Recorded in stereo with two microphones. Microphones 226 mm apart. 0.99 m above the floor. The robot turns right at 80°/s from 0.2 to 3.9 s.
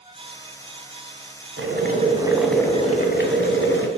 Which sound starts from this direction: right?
Boiling, at 1.6 s.